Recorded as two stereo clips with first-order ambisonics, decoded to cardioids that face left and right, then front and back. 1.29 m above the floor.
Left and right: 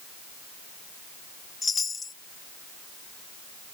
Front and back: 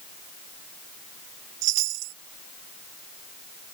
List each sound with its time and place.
1.6 s a chime: 165° left